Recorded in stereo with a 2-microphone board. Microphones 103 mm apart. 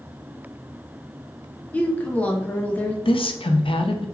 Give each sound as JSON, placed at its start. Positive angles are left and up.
{"t": 1.7, "sound": "a woman speaking", "side_deg": 15, "distance_m": 0.6}
{"t": 3.0, "sound": "a woman speaking", "side_deg": 60, "distance_m": 0.5}